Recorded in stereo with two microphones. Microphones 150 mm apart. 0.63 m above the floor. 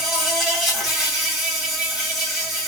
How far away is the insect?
About 1.7 m.